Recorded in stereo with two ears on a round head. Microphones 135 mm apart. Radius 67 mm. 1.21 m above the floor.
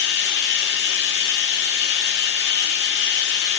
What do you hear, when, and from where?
0.0 s running water: 80° left, 1.3 m